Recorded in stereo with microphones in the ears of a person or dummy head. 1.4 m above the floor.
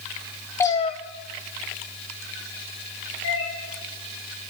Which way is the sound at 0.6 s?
10° left (ahead or behind).